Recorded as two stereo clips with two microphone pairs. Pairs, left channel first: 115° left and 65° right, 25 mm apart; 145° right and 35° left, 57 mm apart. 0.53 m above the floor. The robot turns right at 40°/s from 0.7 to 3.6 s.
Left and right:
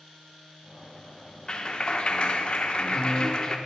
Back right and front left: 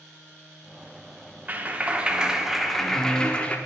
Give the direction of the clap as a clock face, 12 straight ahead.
9 o'clock.